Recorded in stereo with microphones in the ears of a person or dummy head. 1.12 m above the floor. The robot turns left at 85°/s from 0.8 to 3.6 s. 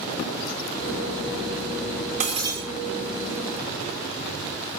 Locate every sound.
2.2 s breaking glass: 125° right, 2 m; by 2.6 s 155° right, 2 m